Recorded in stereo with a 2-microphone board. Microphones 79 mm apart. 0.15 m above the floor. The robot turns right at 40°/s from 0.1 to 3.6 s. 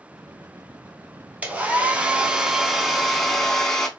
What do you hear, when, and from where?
1.4 s a hair dryer: 20° right (ahead or behind), 0.6 m; by 3.9 s 5° left (ahead or behind), 0.6 m